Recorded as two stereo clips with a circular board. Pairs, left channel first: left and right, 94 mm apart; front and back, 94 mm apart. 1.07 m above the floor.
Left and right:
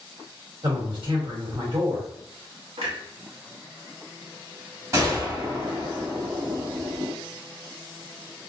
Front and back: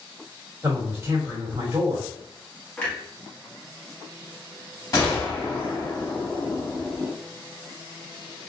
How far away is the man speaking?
About 1.2 m.